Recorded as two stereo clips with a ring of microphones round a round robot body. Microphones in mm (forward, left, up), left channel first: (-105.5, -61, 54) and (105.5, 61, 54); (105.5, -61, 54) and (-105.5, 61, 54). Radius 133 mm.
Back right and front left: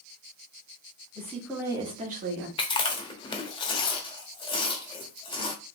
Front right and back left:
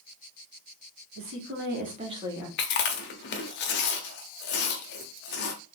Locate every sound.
1.1 s a woman speaking: 135° left, 1.9 m; by 2.5 s 65° left, 1.8 m
2.6 s chewing: 80° right, 0.8 m